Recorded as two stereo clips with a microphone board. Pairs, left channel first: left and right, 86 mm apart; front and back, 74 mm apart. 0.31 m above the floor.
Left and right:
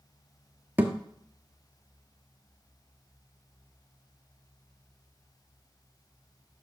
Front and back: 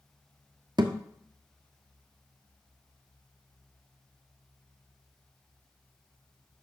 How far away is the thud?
About 0.9 m.